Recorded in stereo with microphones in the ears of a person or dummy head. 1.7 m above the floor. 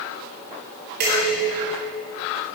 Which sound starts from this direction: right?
Dishes clattering, at 1.0 s.